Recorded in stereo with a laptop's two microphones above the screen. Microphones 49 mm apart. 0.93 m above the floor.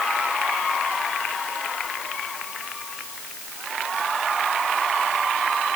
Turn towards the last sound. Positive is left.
No sound to turn to.